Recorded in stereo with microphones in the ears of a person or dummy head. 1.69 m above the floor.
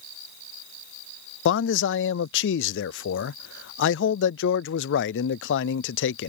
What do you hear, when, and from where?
1.4 s a man speaking: 60° left (ahead or behind)